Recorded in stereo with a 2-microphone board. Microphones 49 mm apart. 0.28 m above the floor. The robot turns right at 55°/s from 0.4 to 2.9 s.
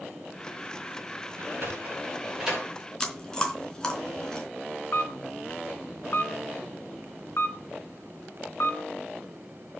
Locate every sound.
1.4 s a sliding door: 70° right (ahead or behind), 7.5 m; by 2.7 s centre (ahead or behind), 7.5 m
3.0 s chewing: 15° left (ahead or behind), 3.5 m
4.9 s a camera shutter: 60° left (ahead or behind), 3.5 m